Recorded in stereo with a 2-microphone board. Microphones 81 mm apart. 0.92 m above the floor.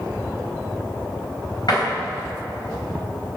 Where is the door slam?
55° left (ahead or behind), 4 m.